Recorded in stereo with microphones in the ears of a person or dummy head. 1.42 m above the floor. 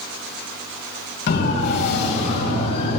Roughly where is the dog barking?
No dog barking in this recording.